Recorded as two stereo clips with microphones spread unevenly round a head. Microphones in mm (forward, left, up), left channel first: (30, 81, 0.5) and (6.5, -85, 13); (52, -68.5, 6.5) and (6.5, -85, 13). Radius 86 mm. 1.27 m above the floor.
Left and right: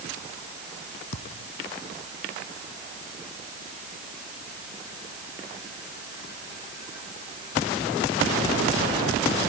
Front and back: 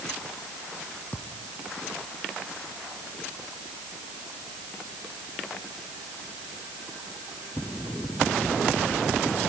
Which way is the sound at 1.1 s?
100° left.